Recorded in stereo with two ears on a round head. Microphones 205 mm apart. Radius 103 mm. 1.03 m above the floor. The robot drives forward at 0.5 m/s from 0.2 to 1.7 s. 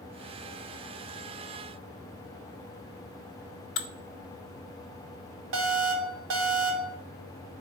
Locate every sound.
3.8 s dishes clattering: 55° left (ahead or behind), 0.6 m
5.5 s an alarm: 60° right (ahead or behind), 1.6 m